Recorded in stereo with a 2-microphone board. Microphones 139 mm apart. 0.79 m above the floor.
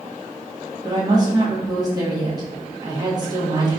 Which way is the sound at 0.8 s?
30° right (ahead or behind).